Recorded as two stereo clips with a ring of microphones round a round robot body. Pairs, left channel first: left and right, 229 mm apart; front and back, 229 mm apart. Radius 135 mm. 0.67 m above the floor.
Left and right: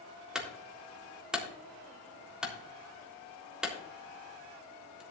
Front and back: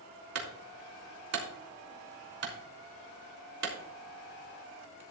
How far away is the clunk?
About 3.5 m.